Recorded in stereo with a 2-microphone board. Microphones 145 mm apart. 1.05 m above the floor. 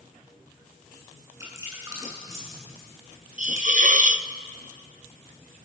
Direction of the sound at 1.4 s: 20° right (ahead or behind).